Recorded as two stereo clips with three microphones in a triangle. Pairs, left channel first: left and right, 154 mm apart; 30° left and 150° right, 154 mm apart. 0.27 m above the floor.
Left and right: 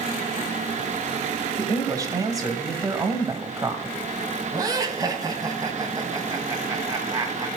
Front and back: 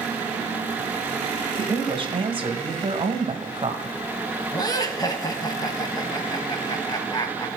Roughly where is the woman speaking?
Behind right.